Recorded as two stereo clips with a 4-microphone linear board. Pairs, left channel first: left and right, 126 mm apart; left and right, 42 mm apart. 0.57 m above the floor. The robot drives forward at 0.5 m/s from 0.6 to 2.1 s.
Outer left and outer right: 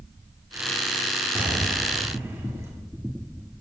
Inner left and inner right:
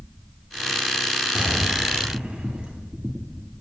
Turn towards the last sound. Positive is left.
turn(degrees=-20)  # may be behind; listen again after turning